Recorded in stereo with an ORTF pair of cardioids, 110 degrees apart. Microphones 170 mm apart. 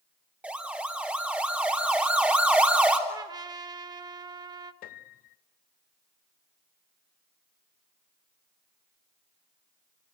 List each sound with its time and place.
0.4 s a siren: 10° right, 3.5 m
3.1 s a trumpet: 25° right, 1.4 m
4.8 s a piano: 65° left, 0.7 m